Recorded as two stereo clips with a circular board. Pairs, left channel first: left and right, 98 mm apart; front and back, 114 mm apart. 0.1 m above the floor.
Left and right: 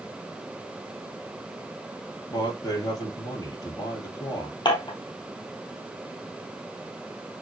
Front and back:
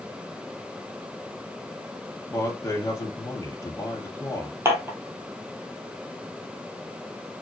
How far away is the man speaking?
About 3 m.